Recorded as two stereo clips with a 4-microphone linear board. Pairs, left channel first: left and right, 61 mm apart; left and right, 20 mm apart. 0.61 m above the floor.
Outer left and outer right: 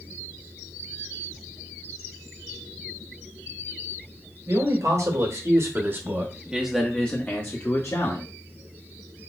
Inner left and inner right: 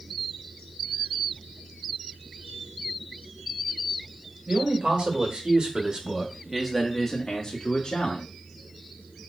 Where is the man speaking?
65° right (ahead or behind), 2.5 m; by 8.2 s 55° left (ahead or behind), 1.8 m.